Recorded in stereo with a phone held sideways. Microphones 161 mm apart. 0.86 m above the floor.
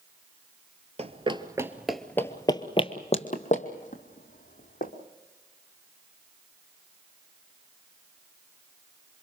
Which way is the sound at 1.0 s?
45° right (ahead or behind).